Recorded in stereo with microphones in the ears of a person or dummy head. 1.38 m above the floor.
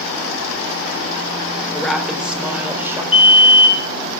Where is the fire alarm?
30° left (ahead or behind), 2.5 m.